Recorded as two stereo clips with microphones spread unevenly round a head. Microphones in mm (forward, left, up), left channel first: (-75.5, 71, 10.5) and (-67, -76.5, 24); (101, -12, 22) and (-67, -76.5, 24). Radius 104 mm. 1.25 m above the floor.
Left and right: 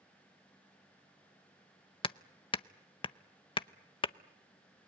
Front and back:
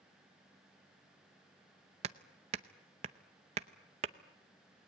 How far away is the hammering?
About 0.6 m.